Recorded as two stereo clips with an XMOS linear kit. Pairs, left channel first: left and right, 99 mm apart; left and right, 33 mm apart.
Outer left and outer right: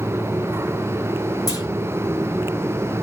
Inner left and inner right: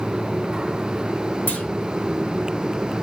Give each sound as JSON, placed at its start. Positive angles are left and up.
{"t": 1.5, "sound": "a clunk", "side_deg": 40, "distance_m": 1.9}